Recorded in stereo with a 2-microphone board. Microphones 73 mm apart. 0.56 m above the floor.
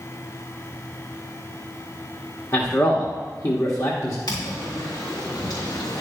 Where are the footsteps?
75° left (ahead or behind), 4 m; by 6.0 s 65° left (ahead or behind), 3 m.